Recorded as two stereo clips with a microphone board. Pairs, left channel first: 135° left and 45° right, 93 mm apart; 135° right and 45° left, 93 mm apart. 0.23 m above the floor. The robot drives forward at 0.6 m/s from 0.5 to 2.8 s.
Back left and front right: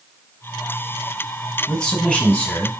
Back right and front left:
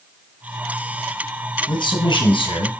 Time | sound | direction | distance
1.7 | a man speaking | 140° right | 1.7 m